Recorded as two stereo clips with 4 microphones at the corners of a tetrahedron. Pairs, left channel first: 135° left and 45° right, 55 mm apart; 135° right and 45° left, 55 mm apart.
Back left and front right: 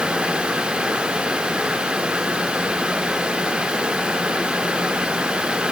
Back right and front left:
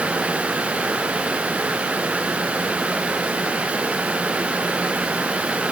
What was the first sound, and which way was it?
Only background noise.